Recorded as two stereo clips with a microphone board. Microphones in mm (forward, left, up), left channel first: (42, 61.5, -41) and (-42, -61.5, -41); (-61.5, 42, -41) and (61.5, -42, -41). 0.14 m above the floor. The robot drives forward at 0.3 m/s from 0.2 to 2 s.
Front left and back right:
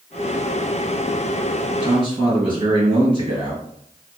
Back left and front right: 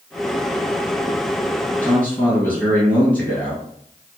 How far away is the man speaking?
About 2.0 m.